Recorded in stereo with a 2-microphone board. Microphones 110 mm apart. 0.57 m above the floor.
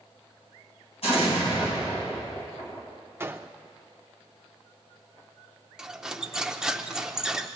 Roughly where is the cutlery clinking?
Centre.